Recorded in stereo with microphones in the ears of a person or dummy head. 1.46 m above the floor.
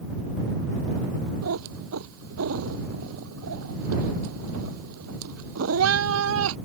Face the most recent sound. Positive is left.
turn(degrees=-75)  # may be behind; listen again after turning